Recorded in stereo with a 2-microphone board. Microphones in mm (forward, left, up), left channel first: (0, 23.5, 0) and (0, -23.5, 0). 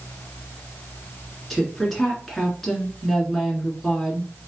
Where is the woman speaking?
5° left (ahead or behind), 1.9 m.